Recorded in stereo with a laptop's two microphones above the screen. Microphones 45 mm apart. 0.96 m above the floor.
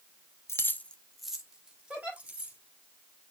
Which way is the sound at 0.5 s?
70° left (ahead or behind).